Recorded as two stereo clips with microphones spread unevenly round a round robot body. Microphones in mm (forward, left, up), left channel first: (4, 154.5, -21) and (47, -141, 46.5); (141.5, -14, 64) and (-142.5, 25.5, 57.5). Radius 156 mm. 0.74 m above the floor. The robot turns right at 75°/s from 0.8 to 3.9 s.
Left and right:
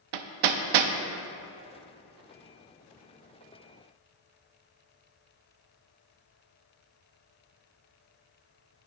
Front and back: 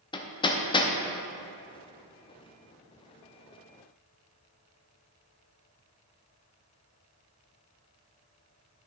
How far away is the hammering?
About 0.5 m.